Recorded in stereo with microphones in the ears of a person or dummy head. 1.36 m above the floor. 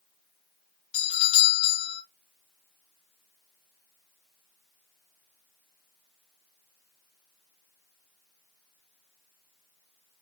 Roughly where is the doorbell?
Left.